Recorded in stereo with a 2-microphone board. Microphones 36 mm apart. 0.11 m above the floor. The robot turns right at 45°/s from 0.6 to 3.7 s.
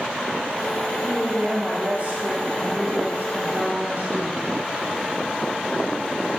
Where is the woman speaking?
Straight behind, 4.5 m; by 4.5 s 60° right, 4.5 m.